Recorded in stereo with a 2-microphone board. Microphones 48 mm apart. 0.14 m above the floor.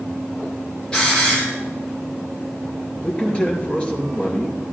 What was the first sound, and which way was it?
A hiss, 15° left (ahead or behind).